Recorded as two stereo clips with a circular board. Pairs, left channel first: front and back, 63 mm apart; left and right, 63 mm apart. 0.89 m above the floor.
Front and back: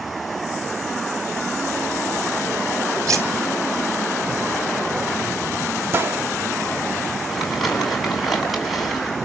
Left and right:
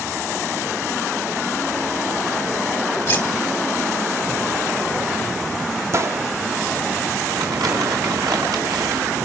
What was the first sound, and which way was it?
Cutlery clinking, 145° left.